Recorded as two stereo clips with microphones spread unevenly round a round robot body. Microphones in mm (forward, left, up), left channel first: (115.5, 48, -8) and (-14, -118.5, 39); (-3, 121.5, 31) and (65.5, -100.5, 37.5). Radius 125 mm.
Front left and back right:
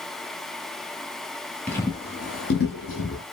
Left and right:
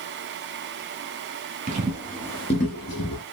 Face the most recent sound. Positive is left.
turn(degrees=90)